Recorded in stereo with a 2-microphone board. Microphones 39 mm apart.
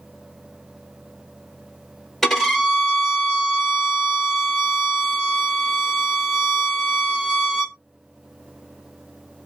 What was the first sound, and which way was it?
A violin, 10° left (ahead or behind).